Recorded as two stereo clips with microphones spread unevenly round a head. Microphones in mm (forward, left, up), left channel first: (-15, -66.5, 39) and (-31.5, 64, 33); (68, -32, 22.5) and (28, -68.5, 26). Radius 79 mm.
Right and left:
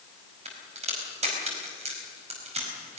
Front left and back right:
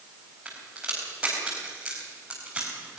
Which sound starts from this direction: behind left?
A crack, at 0.5 s.